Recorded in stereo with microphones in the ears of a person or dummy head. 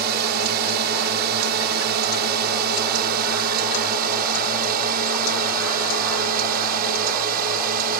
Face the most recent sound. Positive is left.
turn(degrees=-50)  # may be behind; listen again after turning